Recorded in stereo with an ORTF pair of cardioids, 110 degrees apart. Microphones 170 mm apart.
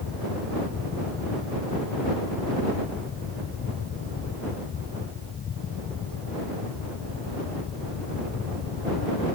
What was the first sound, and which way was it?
A fan, 50° left.